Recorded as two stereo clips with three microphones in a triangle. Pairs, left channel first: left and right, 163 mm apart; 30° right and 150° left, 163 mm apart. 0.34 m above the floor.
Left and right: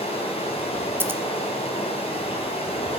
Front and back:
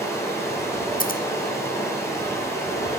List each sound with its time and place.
0.0 s running water: 40° left, 2 m
1.0 s scissors: 15° right, 0.7 m